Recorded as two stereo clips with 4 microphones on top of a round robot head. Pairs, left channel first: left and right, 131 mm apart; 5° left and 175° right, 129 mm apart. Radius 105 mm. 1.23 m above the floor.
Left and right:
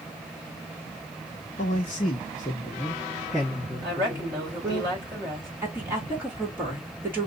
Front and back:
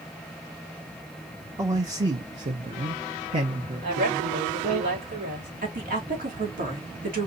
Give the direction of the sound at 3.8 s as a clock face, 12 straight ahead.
5 o'clock.